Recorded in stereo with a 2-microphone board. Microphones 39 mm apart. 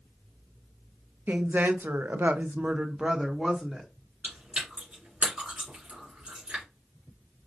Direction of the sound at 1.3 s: 65° right (ahead or behind).